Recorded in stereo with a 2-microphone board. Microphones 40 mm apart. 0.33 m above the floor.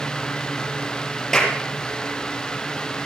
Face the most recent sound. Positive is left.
turn(degrees=15)  # may be behind; listen again after turning